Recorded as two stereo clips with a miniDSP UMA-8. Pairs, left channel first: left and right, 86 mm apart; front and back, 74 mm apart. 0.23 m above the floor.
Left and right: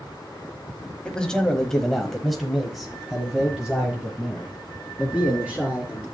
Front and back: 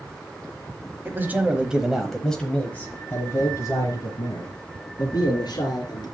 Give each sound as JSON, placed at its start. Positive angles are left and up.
{"t": 1.1, "sound": "a man speaking", "azimuth_deg": 160, "distance_m": 1.4}